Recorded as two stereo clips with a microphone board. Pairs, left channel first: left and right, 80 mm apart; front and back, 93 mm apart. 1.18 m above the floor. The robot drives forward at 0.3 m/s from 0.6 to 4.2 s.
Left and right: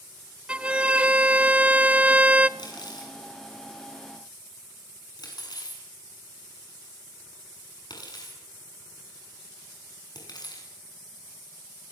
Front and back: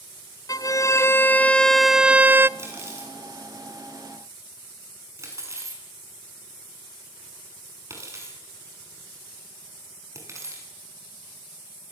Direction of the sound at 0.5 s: 20° right.